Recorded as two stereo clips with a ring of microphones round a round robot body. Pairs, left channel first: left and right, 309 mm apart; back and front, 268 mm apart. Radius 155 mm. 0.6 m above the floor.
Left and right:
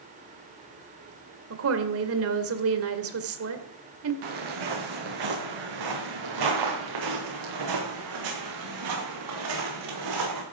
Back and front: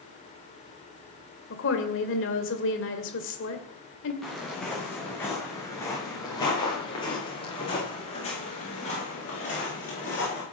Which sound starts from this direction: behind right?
A woman speaking, at 1.5 s.